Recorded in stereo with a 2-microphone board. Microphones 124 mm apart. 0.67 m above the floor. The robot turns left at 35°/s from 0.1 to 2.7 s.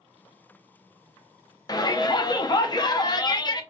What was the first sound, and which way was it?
A shout, 115° left.